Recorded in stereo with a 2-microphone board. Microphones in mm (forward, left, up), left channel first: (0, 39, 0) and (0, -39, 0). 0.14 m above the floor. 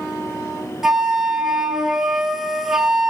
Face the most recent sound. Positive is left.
turn(degrees=-5)  # may be behind; listen again after turning